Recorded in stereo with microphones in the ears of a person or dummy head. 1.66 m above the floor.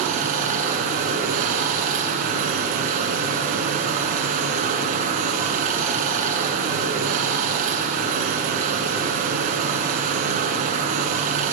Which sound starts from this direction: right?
Running water, at 0.0 s.